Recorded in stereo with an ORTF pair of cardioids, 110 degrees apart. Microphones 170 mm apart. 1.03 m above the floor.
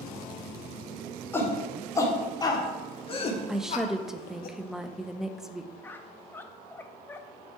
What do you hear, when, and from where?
1.3 s a shout: 15° left, 3 m; by 4.5 s 65° left, 1.5 m
3.5 s a woman speaking: 5° right, 0.7 m
5.8 s a squeak: 10° left, 0.6 m